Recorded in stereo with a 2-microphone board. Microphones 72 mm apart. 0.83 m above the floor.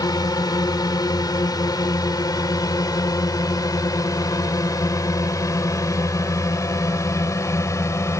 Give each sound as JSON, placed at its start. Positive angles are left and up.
{"t": 0.0, "sound": "a drone", "side_deg": 65}